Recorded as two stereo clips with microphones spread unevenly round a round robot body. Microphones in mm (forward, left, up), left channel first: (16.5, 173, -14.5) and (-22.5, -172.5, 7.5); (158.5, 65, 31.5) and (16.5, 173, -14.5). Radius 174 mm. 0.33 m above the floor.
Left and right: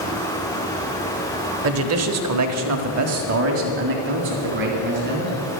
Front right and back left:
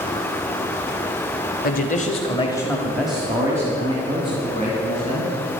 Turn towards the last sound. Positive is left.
turn(degrees=-160)